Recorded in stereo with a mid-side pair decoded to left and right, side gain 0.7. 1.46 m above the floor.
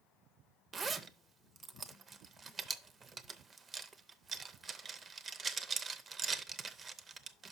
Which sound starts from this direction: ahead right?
A zipper, at 0.7 s.